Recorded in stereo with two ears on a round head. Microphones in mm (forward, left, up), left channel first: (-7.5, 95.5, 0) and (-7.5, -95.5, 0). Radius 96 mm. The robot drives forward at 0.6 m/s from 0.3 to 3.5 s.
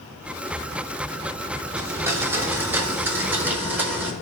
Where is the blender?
15° right (ahead or behind), 1.5 m; by 4.1 s 10° right (ahead or behind), 2.5 m.